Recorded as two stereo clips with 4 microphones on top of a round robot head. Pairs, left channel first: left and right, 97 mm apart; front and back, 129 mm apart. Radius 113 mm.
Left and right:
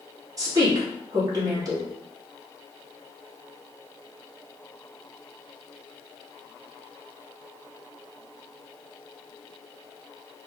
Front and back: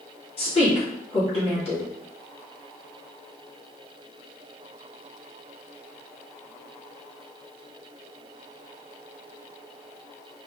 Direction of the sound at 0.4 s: 40° right.